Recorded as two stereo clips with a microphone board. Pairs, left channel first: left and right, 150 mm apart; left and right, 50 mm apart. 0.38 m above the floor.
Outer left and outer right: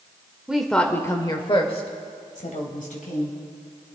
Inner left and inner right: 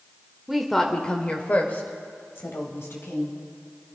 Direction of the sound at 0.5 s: 5° right (ahead or behind).